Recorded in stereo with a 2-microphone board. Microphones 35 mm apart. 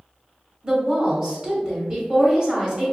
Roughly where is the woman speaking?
Right.